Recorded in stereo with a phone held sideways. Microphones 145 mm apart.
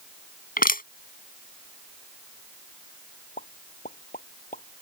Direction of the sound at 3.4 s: 70° left (ahead or behind).